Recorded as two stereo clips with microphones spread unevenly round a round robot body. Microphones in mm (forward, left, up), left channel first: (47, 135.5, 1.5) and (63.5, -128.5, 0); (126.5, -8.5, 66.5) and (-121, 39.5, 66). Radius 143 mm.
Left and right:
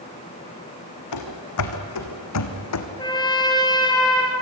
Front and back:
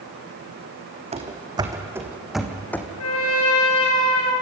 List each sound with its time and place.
1.1 s running footsteps: 105° left, 2.5 m; by 2.9 s 70° left, 2.5 m
3.0 s a trumpet: 20° left, 4.5 m